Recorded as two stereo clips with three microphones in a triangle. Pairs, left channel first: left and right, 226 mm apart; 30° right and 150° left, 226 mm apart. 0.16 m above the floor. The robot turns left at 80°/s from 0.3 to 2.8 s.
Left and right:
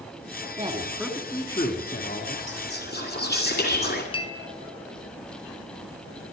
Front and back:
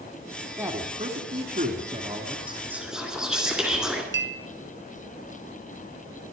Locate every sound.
0.6 s a man speaking: 135° right, 1.7 m; by 2.4 s 85° left, 1.7 m
2.5 s whispering: 90° left, 1.7 m; by 4.0 s 65° left, 1.7 m
4.1 s a clink: 150° left, 1.0 m